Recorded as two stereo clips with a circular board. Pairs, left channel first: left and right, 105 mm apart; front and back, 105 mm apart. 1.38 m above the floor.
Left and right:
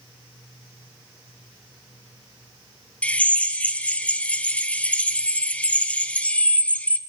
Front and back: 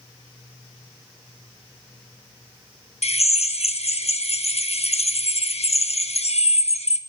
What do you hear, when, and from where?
3.0 s a drill: 10° left, 1.1 m